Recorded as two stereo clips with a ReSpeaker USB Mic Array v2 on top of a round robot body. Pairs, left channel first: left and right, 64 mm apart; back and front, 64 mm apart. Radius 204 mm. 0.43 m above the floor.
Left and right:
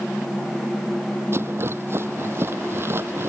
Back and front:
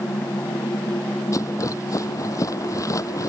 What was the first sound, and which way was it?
A rattle, 140° right.